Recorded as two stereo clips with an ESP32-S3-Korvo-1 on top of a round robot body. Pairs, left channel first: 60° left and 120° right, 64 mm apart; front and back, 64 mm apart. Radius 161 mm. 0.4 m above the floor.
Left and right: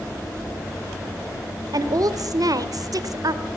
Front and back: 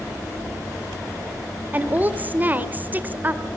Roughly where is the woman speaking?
Behind right.